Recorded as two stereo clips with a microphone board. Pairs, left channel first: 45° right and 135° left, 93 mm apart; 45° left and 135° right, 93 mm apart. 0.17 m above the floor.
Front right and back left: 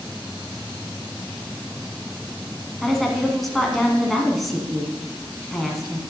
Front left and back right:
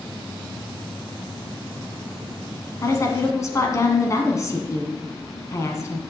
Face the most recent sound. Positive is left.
turn(degrees=40)